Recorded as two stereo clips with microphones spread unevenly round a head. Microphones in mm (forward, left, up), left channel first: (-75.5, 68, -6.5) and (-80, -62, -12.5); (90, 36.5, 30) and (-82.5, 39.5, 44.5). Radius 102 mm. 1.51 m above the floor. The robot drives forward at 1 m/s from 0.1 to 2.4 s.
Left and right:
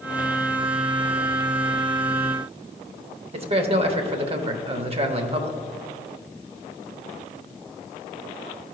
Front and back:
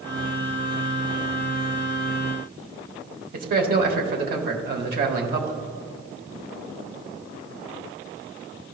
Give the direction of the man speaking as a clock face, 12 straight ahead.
5 o'clock.